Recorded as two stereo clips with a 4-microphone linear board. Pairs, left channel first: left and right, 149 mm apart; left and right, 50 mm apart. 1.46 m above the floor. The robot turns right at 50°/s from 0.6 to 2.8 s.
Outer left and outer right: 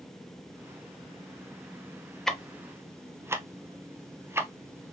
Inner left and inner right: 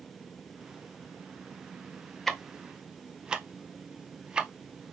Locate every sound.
2.3 s ticking: 5° left (ahead or behind), 0.6 m; by 4.9 s 15° right (ahead or behind), 0.6 m